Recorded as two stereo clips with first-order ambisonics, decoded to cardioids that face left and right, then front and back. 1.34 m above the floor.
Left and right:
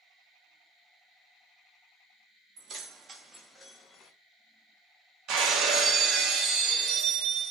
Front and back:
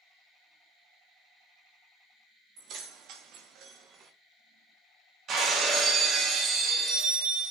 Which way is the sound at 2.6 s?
140° right.